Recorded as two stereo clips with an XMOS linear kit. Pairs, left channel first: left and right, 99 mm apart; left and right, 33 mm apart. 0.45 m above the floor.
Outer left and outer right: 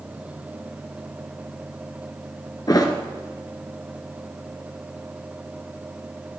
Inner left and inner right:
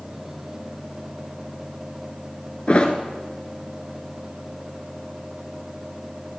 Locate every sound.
2.7 s a thud: 40° left (ahead or behind), 1.3 m